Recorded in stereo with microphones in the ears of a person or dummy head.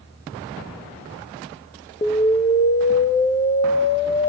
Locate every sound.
2.0 s an explosion: 30° left (ahead or behind), 0.6 m